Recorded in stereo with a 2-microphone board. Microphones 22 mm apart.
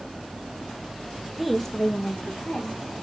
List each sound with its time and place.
1.4 s a woman speaking: 5° right (ahead or behind), 0.6 m; by 2.9 s 75° left (ahead or behind), 1.4 m